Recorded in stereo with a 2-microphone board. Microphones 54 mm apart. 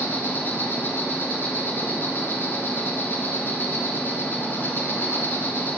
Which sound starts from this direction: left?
An insect, at 0.0 s.